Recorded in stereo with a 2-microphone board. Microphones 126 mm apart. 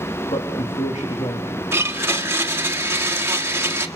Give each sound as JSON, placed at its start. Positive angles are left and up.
{"t": 0.3, "sound": "a man speaking", "side_deg": 65, "distance_m": 3.5}
{"t": 1.7, "sound": "a blender", "side_deg": -20, "distance_m": 1.3}